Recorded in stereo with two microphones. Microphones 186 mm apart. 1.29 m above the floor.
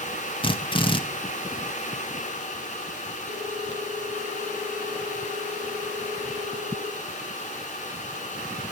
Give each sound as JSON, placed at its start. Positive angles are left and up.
{"t": 0.4, "sound": "a drill", "side_deg": 25, "distance_m": 1.6}
{"t": 3.3, "sound": "a ringtone", "side_deg": -50, "distance_m": 4.0}